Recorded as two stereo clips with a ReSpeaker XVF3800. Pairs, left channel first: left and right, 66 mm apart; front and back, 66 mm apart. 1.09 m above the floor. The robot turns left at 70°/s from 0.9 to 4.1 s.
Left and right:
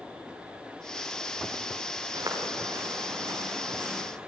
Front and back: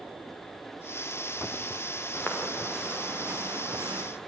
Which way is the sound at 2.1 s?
55° right.